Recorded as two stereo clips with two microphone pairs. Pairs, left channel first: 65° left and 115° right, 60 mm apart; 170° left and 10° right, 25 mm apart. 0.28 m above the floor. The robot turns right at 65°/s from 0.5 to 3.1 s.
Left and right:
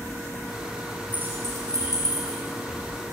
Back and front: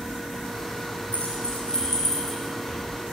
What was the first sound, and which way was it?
Keys jangling, 175° right.